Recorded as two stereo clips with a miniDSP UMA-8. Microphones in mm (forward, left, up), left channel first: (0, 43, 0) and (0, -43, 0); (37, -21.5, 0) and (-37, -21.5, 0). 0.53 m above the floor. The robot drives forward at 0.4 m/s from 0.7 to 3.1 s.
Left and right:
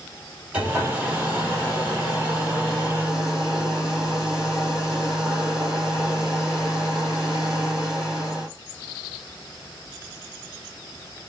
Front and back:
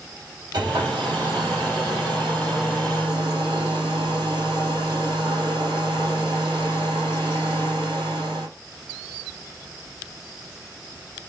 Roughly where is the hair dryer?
Behind.